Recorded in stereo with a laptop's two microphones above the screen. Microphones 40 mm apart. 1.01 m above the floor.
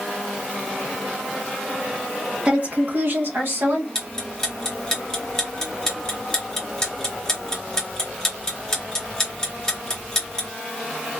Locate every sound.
2.5 s a woman speaking: 25° right (ahead or behind), 0.6 m; by 3.9 s 60° right (ahead or behind), 1.2 m
4.0 s ticking: 20° left (ahead or behind), 0.8 m